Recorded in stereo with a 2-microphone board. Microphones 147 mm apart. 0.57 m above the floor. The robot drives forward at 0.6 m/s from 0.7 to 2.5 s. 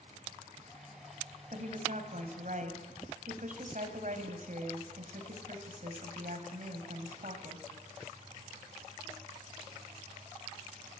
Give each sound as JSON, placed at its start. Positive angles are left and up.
{"t": 1.5, "sound": "a woman speaking", "side_deg": -60, "distance_m": 4.5}